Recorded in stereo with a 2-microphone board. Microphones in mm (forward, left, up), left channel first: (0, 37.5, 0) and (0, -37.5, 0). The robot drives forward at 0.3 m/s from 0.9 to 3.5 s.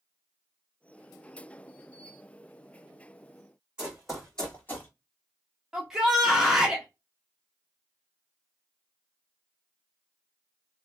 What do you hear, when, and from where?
3.8 s running footsteps: 10° right (ahead or behind), 2 m; by 4.9 s 30° left (ahead or behind), 2.0 m
5.7 s a shout: 5° right (ahead or behind), 0.6 m